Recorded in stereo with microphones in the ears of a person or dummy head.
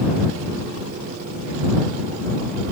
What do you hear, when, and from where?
Only background noise.